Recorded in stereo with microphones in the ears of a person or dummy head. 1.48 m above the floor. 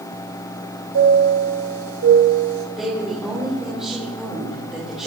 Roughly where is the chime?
Right.